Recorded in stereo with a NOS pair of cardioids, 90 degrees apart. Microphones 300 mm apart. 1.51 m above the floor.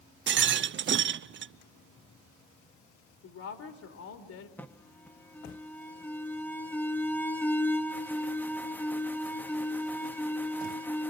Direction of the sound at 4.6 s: 5° left.